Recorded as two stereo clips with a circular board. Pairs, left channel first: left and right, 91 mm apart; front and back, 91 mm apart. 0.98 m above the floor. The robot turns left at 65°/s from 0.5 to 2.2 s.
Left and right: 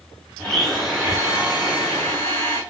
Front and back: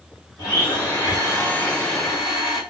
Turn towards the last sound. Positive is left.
turn(degrees=-100)